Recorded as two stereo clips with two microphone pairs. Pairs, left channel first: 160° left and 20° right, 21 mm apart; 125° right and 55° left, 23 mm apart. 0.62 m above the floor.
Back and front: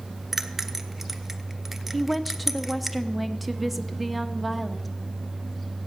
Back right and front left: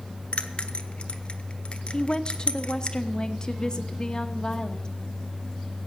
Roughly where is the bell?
Right.